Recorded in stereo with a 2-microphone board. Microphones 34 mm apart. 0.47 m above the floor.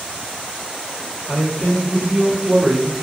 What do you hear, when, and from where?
1.3 s a man speaking: 45° left (ahead or behind), 1.5 m; by 2.9 s 45° right (ahead or behind), 1.2 m